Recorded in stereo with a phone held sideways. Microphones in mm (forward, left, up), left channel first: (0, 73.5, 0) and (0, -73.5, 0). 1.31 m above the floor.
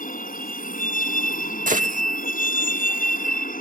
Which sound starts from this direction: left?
A vehicle, at 0.0 s.